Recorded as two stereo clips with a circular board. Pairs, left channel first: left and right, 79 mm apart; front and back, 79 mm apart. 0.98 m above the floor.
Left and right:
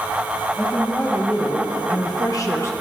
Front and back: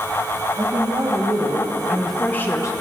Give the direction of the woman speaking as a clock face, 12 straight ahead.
6 o'clock.